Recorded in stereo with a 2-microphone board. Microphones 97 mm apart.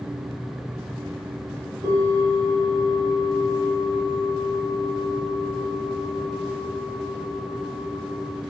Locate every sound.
1.8 s a bell: 50° right (ahead or behind), 1.4 m